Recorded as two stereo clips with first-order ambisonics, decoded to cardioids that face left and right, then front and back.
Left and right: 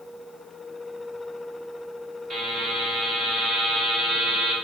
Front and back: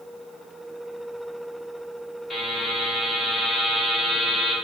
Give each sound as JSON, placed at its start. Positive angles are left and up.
{"t": 2.3, "sound": "a buzzer", "azimuth_deg": -60, "distance_m": 1.3}